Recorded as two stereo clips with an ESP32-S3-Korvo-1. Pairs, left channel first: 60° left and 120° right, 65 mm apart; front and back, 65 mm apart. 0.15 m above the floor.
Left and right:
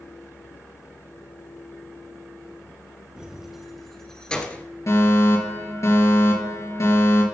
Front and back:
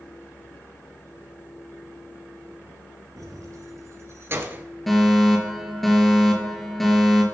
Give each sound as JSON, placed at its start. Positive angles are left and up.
{"t": 3.2, "sound": "keys jangling", "azimuth_deg": 160, "distance_m": 2.5}
{"t": 4.9, "sound": "a fire alarm", "azimuth_deg": 85, "distance_m": 4.5}